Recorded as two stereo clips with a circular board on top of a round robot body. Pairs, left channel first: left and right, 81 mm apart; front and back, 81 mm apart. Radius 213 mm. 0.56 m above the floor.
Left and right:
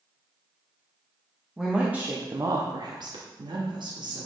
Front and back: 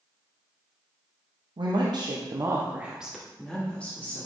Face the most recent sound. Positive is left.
turn(degrees=-70)